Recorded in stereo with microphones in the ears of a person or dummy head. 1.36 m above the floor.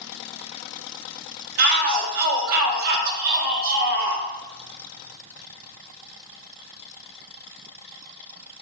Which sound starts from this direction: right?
A shout, at 1.6 s.